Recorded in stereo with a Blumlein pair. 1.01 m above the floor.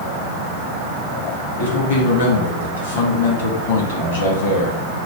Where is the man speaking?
65° left, 1.7 m.